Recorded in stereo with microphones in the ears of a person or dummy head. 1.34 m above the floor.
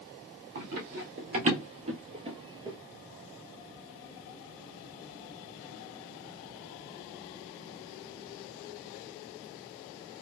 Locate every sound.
0.6 s running footsteps: 50° right (ahead or behind), 2 m; by 2.8 s 25° right (ahead or behind), 1.7 m